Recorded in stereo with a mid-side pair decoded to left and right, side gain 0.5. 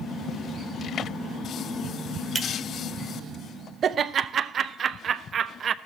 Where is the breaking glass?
25° right, 1.2 m.